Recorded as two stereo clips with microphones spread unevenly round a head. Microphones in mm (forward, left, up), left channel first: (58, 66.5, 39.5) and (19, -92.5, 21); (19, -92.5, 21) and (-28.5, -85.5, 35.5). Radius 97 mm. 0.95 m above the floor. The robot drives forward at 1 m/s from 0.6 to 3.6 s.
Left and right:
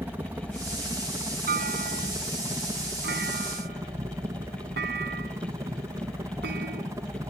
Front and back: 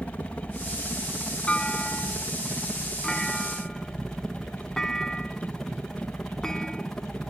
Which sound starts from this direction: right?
A clunk, at 1.5 s.